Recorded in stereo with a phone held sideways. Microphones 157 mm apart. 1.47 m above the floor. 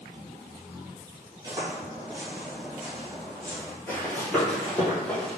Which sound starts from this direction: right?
Footsteps, at 1.4 s.